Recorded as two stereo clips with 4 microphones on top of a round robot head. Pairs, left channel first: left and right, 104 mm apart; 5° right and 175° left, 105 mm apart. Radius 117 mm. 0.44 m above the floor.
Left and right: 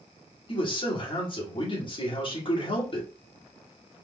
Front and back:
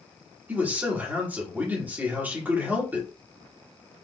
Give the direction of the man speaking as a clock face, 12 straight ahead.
9 o'clock.